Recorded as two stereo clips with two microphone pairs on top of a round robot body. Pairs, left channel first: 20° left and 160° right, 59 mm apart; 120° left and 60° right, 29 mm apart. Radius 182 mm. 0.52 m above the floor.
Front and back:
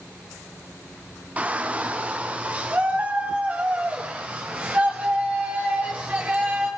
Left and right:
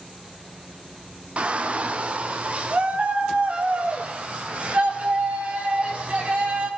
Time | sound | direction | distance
1.4 | a shout | 95° right | 1.6 m